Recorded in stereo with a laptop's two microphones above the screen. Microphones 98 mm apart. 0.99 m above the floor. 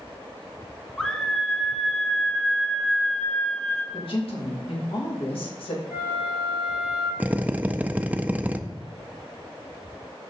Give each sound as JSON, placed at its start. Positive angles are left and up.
{"t": 1.0, "sound": "a scream", "side_deg": 5, "distance_m": 0.8}
{"t": 3.9, "sound": "a woman speaking", "side_deg": 65, "distance_m": 1.8}
{"t": 5.9, "sound": "a flute", "side_deg": 80, "distance_m": 3.5}
{"t": 7.2, "sound": "a drill", "side_deg": -15, "distance_m": 0.5}